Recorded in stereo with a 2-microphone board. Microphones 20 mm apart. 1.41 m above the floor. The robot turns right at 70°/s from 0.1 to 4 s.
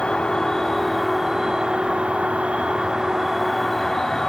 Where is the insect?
115° left, 1.8 m; by 4.3 s 25° left, 1.8 m.